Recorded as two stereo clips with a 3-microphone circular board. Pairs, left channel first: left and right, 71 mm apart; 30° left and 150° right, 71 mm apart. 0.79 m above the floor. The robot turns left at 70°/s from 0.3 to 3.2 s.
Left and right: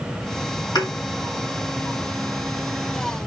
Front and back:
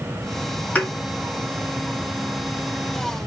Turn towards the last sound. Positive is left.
turn(degrees=-75)